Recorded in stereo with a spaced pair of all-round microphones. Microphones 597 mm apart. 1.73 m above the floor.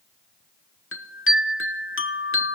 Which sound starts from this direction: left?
A chime, at 0.9 s.